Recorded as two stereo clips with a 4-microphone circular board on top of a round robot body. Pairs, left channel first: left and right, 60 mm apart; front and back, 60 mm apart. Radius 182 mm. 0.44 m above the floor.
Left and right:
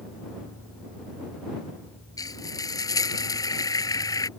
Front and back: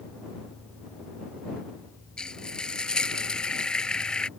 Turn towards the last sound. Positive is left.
turn(degrees=75)